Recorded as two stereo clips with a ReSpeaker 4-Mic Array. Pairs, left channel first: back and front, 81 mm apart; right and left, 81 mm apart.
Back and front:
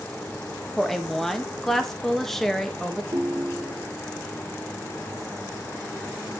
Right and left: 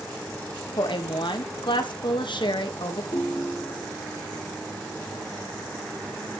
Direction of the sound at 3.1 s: 50° right.